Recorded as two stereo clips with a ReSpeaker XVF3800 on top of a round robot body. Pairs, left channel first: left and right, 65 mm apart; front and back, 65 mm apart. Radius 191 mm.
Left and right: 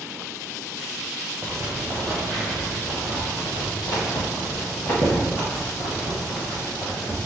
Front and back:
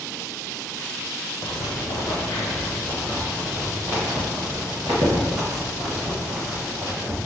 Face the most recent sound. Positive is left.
turn(degrees=140)